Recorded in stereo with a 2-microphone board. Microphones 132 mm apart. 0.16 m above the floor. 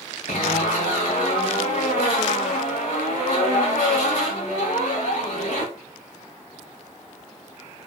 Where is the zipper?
75° left (ahead or behind), 5.5 m.